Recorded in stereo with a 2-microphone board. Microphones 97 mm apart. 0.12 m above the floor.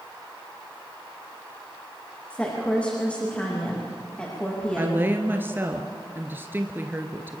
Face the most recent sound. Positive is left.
turn(degrees=-20)  # may be behind; listen again after turning